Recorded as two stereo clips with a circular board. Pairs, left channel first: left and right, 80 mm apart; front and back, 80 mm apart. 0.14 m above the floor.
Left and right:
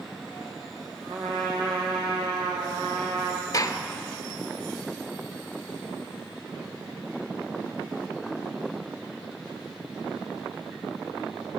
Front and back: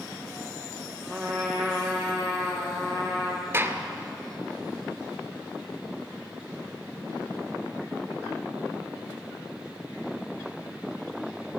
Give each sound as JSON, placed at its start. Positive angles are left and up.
{"t": 1.1, "sound": "a trumpet", "azimuth_deg": -90, "distance_m": 2.0}
{"t": 3.5, "sound": "a gunshot", "azimuth_deg": 125, "distance_m": 0.7}